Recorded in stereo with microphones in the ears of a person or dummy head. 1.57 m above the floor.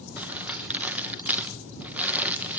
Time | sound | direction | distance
0.2 | crumpling | 10° right (ahead or behind) | 1.5 m